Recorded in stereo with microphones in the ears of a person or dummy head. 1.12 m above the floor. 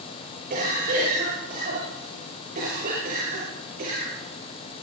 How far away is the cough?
About 5.5 m.